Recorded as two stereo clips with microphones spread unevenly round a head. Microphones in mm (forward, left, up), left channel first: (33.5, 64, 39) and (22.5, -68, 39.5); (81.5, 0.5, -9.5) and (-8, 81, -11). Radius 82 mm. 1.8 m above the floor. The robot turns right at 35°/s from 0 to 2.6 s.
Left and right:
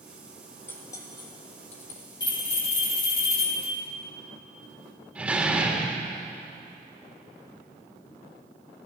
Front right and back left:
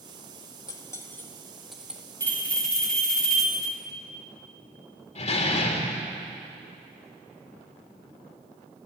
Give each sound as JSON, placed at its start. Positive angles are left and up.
{"t": 0.7, "sound": "cutlery clinking", "azimuth_deg": 15, "distance_m": 2.0}
{"t": 2.2, "sound": "a bell", "azimuth_deg": 25, "distance_m": 3.5}
{"t": 5.2, "sound": "a door slam", "azimuth_deg": -15, "distance_m": 3.0}